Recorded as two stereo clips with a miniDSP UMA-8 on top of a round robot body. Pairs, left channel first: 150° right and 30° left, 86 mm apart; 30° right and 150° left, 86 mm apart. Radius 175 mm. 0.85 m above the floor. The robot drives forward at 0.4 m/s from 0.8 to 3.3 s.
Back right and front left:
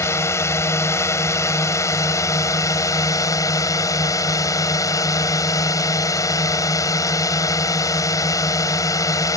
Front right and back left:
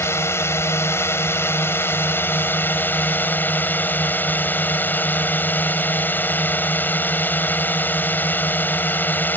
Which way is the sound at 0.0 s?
90° right.